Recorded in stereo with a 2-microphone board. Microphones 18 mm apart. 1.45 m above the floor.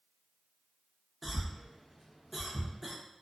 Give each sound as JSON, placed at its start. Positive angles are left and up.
{"t": 1.2, "sound": "a cough", "side_deg": -5, "distance_m": 0.6}